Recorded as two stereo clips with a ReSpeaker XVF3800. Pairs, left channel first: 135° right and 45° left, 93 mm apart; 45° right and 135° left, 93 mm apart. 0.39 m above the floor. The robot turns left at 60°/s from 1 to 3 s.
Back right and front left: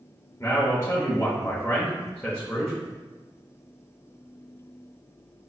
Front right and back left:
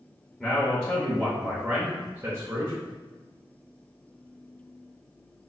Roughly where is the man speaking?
Behind right.